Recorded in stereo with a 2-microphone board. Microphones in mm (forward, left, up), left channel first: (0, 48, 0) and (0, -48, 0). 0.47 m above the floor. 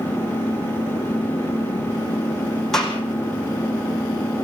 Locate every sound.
0.0 s an engine running: 65° left (ahead or behind), 7.5 m
2.7 s a gunshot: 5° left (ahead or behind), 4 m